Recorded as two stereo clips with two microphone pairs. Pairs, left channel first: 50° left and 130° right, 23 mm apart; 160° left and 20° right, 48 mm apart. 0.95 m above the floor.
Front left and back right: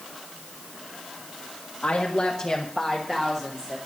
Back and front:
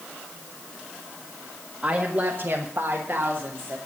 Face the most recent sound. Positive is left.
turn(degrees=-70)